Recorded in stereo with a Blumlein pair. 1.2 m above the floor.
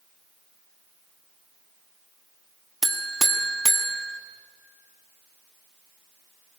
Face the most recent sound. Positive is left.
turn(degrees=-5)